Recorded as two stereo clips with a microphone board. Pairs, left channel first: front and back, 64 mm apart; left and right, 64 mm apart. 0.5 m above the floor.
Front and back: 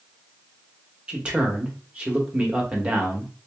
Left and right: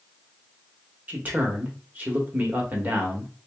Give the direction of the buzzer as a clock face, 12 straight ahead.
No buzzer in this recording.